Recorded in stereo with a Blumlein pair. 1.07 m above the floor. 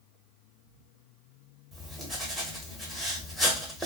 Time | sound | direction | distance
1.7 | writing | straight ahead | 1.1 m